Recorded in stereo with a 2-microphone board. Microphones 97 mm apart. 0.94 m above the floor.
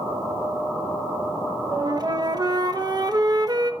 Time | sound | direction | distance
1.7 | a flute | 45° right (ahead or behind) | 1.1 m